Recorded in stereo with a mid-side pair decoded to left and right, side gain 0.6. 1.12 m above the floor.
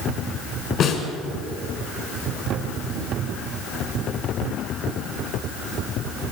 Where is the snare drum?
55° left, 6 m.